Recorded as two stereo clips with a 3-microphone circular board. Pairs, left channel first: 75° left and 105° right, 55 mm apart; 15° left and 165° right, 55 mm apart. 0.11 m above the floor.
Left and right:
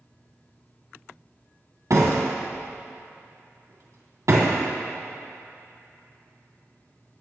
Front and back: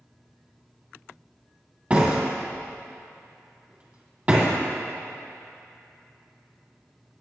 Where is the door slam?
105° right, 2.5 m.